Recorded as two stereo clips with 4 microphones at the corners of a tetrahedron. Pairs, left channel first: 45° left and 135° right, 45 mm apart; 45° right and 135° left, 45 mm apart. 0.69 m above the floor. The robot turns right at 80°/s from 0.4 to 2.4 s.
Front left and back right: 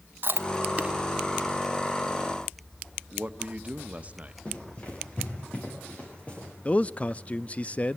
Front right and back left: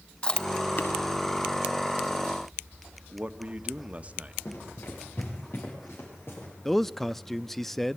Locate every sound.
0.2 s chewing: 110° right, 0.9 m; by 0.9 s 65° right, 0.9 m
3.1 s a man speaking: straight behind, 1.1 m
4.5 s running footsteps: 15° right, 7 m
6.7 s a man speaking: 30° left, 0.5 m